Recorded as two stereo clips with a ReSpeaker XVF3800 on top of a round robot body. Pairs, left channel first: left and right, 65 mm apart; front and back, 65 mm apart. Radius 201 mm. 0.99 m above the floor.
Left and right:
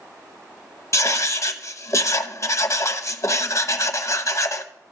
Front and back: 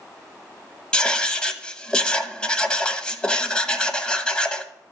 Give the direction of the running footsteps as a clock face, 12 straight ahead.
No running footsteps in this recording.